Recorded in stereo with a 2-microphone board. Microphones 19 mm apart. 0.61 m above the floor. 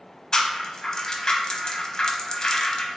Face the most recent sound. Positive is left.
turn(degrees=35)  # may be behind; listen again after turning